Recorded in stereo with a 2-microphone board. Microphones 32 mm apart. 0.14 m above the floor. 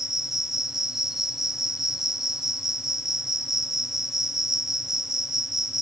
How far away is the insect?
About 0.8 m.